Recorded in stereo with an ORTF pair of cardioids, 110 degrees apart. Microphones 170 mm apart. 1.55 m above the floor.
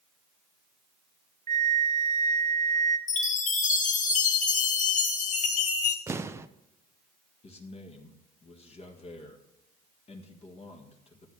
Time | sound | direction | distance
1.5 | a flute | 45° right | 1.0 m
3.1 | a chime | 45° left | 1.7 m
6.1 | an explosion | 15° right | 0.6 m
7.4 | a man speaking | 35° left | 1.7 m